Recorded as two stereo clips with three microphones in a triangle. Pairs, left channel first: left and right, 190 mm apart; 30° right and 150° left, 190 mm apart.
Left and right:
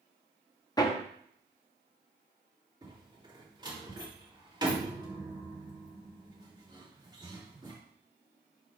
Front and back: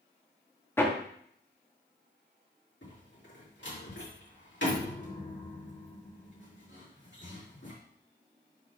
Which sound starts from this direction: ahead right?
A door slam, at 2.8 s.